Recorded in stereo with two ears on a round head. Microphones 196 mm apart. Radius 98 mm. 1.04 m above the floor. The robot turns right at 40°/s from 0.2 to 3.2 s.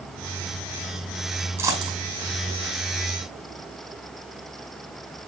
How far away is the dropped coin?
About 5 m.